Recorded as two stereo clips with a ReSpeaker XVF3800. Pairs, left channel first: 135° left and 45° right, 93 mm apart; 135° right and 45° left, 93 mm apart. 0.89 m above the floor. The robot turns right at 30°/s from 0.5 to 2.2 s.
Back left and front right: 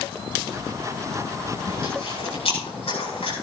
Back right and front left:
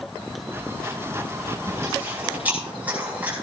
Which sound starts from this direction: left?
Chewing, at 1.7 s.